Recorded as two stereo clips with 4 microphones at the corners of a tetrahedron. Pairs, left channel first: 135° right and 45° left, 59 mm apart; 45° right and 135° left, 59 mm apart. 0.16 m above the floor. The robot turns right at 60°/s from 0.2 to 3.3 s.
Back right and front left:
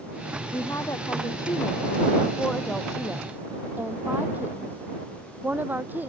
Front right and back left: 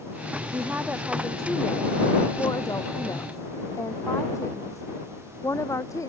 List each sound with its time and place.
0.5 s a woman speaking: 175° left; by 6.1 s 15° right